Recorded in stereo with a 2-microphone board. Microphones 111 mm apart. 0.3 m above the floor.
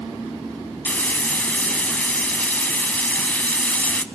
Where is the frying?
15° left (ahead or behind), 0.5 m.